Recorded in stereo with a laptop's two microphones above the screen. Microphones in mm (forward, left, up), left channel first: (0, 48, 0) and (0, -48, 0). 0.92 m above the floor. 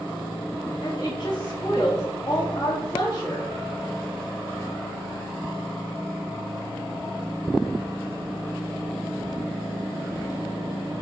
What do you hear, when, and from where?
0.8 s a woman speaking: 35° left (ahead or behind), 1.5 m